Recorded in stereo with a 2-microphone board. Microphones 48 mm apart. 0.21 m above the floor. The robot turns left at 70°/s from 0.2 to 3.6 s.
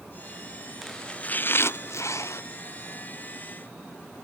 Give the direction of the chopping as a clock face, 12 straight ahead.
6 o'clock.